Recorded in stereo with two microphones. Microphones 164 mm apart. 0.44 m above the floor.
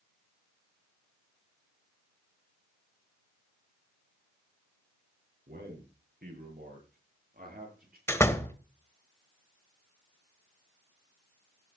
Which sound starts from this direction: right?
A man speaking, at 5.5 s.